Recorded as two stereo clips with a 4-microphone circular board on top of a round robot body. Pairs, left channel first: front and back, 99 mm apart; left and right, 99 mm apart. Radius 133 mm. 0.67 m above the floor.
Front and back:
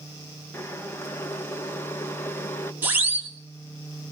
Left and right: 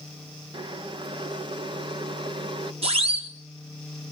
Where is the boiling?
65° right, 1.8 m.